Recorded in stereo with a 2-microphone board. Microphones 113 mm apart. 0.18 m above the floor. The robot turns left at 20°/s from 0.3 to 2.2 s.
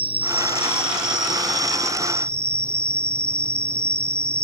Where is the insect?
115° right; by 4.4 s 155° right.